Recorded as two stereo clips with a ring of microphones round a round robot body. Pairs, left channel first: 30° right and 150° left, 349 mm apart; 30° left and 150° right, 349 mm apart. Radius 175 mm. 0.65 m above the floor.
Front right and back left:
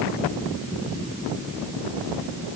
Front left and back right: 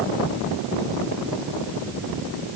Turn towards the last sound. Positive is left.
No sound to turn to.